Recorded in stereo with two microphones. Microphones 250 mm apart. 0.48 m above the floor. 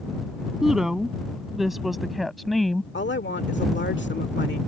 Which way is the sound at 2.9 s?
45° left (ahead or behind).